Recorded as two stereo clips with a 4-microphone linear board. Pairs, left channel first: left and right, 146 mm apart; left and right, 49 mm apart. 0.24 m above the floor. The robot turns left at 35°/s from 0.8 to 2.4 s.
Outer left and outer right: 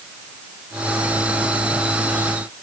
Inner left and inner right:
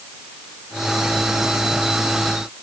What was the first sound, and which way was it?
Only background noise.